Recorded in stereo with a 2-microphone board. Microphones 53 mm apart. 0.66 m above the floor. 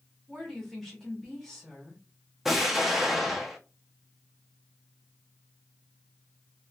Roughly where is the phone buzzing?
No phone buzzing in this recording.